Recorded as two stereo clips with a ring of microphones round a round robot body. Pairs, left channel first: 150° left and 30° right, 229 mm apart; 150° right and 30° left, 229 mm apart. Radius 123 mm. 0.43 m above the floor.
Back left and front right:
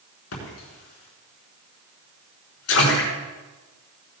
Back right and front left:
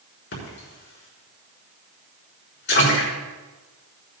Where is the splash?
170° left, 6 m.